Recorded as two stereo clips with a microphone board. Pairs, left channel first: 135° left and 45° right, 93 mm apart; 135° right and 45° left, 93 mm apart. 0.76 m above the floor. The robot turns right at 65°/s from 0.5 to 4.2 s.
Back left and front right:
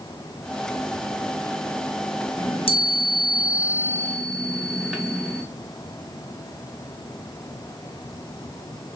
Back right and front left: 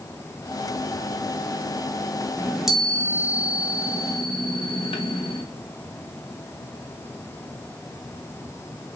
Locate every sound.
2.4 s a chime: 110° left, 0.7 m; by 5.4 s 130° right, 0.7 m